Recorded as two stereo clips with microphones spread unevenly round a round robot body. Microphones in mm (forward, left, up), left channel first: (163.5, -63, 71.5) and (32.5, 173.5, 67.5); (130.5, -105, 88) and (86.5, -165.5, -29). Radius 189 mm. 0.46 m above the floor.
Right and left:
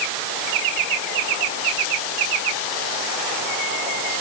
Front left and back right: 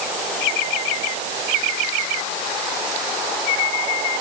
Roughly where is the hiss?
I don't hear a hiss.